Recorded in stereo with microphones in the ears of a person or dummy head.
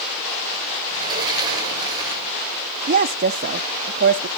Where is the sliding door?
20° right (ahead or behind), 2 m.